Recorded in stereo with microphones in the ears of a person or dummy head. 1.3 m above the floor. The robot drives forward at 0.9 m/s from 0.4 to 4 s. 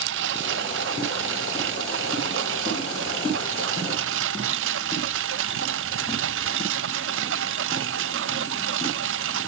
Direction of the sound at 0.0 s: 75° right (ahead or behind).